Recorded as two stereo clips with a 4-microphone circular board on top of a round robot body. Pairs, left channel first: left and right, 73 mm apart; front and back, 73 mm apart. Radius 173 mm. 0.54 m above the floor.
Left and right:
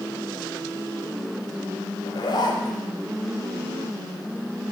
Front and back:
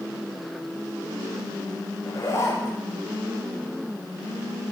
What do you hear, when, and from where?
2.0 s a zipper: 55° left, 0.7 m